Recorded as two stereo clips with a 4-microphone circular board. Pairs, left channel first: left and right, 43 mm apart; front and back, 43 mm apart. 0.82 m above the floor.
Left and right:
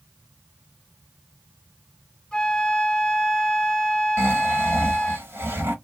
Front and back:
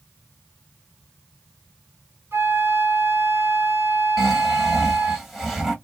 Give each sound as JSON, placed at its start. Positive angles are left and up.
{"t": 2.3, "sound": "a flute", "azimuth_deg": 160, "distance_m": 1.9}
{"t": 4.2, "sound": "snoring", "azimuth_deg": -95, "distance_m": 1.2}